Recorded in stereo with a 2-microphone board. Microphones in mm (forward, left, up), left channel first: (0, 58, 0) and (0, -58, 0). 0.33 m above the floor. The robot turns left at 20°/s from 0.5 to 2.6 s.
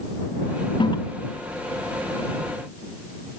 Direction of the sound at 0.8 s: 45° left (ahead or behind).